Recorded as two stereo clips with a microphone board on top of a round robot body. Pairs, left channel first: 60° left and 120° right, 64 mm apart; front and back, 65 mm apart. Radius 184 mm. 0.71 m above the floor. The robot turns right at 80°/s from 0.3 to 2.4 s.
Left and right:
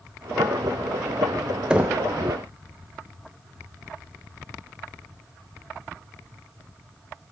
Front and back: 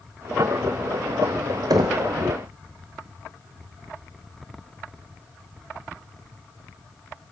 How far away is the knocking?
About 0.6 m.